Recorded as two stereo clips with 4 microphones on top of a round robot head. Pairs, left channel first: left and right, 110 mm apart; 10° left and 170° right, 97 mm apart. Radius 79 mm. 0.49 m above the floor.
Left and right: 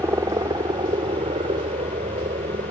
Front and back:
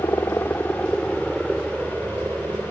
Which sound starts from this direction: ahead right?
A helicopter, at 0.0 s.